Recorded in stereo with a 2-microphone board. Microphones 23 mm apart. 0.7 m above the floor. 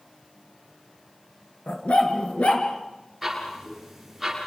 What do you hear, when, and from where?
1.7 s a dog barking: 70° left (ahead or behind), 3.5 m
3.2 s ticking: 5° right (ahead or behind), 8.5 m